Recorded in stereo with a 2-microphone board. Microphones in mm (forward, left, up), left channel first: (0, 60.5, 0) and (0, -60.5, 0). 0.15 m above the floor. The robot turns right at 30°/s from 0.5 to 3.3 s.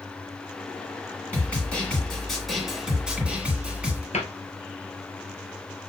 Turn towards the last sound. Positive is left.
turn(degrees=70)  # may be behind; listen again after turning